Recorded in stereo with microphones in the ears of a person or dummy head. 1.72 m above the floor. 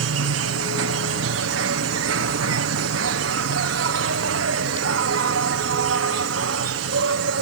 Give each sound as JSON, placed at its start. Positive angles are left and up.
{"t": 0.0, "sound": "an insect", "side_deg": -70}